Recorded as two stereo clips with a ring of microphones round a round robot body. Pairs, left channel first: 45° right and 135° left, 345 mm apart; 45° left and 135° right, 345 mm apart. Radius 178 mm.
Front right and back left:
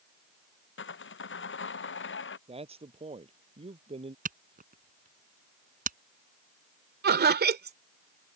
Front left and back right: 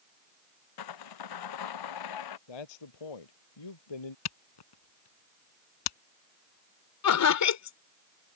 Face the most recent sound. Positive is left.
turn(degrees=75)